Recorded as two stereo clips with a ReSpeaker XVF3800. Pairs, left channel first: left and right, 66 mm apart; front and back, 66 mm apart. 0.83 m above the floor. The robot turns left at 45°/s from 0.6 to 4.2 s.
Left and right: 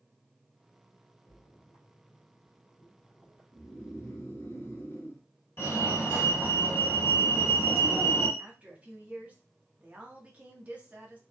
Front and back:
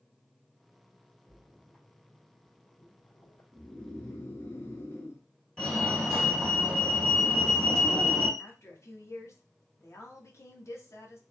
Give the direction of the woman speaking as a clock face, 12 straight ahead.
1 o'clock.